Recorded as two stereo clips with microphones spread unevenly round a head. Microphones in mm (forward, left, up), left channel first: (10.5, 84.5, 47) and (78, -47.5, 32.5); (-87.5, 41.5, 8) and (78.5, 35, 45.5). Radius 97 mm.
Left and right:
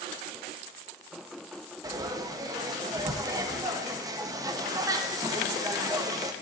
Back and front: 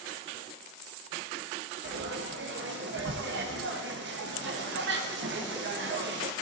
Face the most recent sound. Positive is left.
turn(degrees=0)